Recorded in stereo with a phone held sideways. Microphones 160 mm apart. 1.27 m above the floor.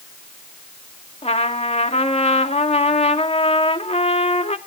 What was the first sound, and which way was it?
A trumpet, 40° left (ahead or behind).